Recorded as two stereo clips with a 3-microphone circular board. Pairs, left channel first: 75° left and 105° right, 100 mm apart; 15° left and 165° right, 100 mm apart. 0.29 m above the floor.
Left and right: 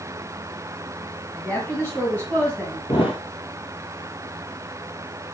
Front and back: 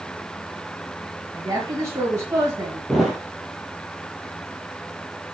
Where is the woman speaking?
145° left, 2 m.